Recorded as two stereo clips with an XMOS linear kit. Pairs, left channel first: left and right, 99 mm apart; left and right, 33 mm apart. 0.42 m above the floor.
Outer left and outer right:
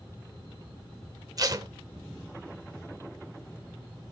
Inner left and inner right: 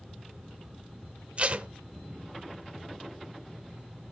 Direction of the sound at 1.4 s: 40° right (ahead or behind).